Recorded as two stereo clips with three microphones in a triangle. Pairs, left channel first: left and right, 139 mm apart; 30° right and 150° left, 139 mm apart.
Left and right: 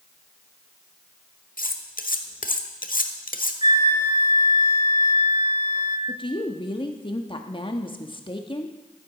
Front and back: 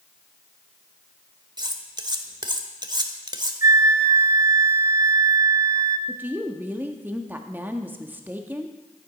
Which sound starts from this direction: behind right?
A flute, at 3.6 s.